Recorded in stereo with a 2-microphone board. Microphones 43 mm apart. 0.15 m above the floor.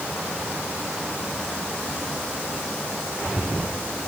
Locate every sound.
Only background noise.